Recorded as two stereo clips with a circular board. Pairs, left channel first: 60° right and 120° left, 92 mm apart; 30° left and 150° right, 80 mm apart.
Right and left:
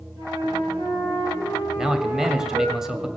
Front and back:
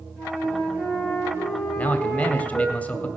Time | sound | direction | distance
0.2 | a flute | 150° left | 6.5 m
1.8 | a man speaking | 45° left | 0.9 m